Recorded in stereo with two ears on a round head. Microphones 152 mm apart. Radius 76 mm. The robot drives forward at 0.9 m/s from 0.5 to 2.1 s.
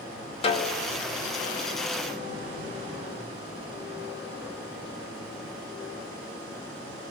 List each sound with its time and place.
0.4 s a snare drum: 35° left (ahead or behind), 0.9 m; by 0.9 s 25° left (ahead or behind), 1.2 m